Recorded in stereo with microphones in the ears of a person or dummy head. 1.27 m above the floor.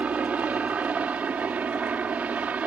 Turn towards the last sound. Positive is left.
turn(degrees=-5)  # may be behind; listen again after turning